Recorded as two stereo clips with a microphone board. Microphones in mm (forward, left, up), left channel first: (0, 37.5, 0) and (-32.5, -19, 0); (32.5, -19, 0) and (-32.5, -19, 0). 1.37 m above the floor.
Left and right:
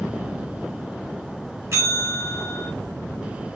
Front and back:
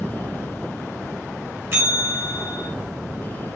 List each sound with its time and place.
1.7 s a bell: 145° right, 1.7 m